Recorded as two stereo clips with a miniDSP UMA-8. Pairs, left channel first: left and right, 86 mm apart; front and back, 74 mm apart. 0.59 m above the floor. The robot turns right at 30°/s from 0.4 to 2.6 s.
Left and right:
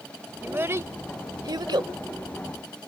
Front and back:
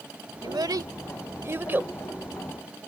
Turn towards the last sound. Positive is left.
turn(degrees=-95)